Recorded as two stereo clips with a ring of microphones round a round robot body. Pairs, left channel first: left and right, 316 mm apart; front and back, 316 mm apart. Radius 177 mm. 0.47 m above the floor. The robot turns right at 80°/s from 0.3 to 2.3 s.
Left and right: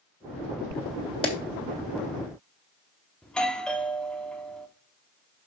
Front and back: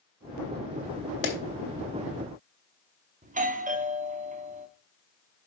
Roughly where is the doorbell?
Behind.